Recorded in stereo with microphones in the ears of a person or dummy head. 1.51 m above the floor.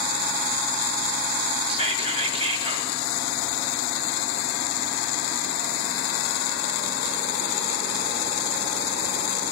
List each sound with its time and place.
1.7 s whispering: 25° right (ahead or behind), 4.5 m